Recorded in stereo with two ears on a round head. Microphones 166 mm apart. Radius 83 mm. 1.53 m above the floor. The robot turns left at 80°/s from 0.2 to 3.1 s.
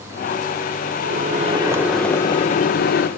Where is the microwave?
105° right, 0.8 m; by 3.1 s 90° left, 0.8 m.